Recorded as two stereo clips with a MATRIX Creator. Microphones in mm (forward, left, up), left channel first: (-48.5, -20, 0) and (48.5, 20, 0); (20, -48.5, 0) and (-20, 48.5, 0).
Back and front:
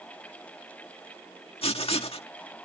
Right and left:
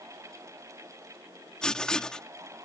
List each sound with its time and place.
1.6 s writing: 150° right